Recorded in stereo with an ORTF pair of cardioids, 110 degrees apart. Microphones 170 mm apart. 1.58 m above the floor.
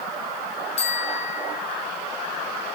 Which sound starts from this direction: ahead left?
A bicycle bell, at 0.8 s.